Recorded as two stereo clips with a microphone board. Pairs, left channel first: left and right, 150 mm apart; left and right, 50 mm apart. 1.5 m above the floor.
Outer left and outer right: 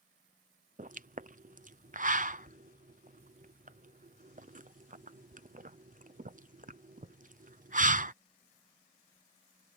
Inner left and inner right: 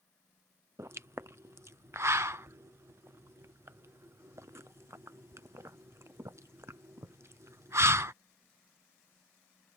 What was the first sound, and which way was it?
A pop, 65° right (ahead or behind).